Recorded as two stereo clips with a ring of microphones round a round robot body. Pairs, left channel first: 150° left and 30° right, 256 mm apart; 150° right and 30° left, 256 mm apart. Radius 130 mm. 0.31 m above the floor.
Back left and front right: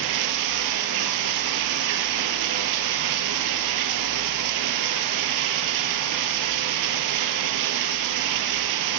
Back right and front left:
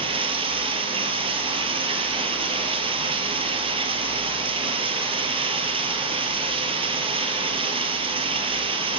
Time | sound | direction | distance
0.0 | running water | 40° right | 1.7 m